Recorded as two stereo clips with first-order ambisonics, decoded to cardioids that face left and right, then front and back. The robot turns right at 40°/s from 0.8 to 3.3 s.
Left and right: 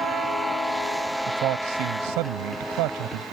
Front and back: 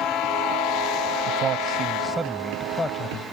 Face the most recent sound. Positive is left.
turn(degrees=-55)